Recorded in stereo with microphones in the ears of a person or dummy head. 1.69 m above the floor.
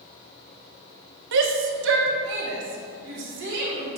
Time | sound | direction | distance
1.3 | a shout | 60° right (ahead or behind) | 1.1 m